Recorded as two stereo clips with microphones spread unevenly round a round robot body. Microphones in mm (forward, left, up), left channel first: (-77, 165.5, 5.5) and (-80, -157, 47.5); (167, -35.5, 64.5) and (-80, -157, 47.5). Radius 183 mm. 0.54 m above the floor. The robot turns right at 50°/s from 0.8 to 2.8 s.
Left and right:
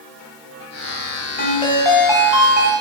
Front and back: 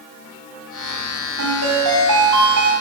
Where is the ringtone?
150° left, 3 m; by 2.7 s 140° right, 3 m.